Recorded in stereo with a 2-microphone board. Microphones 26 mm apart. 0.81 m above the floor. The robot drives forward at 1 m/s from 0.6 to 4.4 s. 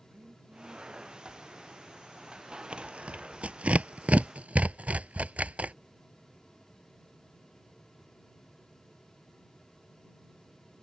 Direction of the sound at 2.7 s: 50° right (ahead or behind).